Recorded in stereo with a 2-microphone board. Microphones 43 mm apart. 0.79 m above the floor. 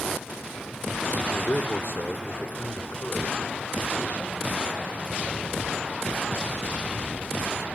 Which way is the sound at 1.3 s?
75° left (ahead or behind).